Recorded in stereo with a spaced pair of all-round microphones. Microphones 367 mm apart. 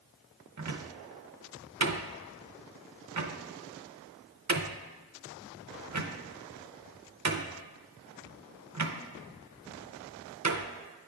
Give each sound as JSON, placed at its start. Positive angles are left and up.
{"t": 0.6, "sound": "a cupboard door", "side_deg": -50, "distance_m": 0.5}